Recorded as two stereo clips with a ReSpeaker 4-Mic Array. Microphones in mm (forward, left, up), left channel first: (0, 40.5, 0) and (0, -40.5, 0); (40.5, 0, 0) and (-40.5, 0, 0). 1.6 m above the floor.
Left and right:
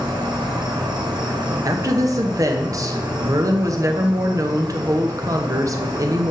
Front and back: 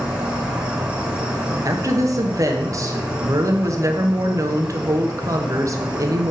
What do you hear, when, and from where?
0.0 s an insect: 100° right, 1.7 m
1.6 s a woman speaking: 135° right, 1.0 m